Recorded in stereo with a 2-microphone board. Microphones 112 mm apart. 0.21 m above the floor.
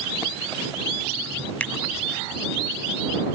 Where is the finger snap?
15° left (ahead or behind).